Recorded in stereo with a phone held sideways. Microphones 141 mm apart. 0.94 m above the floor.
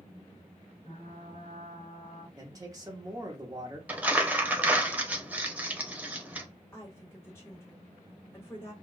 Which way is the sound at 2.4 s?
25° right (ahead or behind).